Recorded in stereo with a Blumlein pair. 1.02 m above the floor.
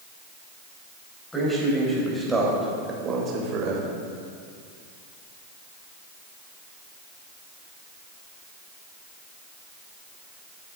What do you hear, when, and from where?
1.3 s a man speaking: 5° left, 4.5 m; by 4.0 s 45° right, 3.5 m